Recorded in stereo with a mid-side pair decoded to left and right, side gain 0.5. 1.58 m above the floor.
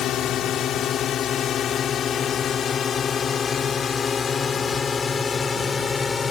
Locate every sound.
0.0 s a drone: 65° left; by 6.3 s 30° left